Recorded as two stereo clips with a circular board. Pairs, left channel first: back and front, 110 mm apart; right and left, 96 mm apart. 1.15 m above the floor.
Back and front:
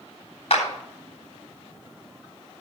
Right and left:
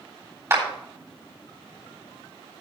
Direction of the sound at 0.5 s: 150° left.